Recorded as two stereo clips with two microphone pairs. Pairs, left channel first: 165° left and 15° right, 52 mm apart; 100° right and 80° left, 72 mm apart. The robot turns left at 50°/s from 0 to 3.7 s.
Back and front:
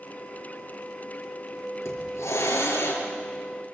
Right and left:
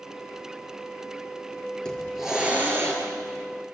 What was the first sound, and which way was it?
A hiss, straight behind.